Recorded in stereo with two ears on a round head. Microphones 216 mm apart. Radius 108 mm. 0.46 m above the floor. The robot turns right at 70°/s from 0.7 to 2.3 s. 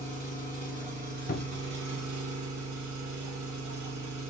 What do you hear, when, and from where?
0.0 s an engine running: 165° right, 1.7 m; by 4.3 s 55° right, 1.7 m
1.3 s a cupboard door: 35° left (ahead or behind), 0.5 m; by 1.8 s 25° left (ahead or behind), 0.5 m